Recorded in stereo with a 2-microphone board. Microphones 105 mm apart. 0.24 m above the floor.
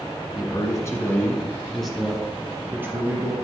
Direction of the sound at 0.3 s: 40° left (ahead or behind).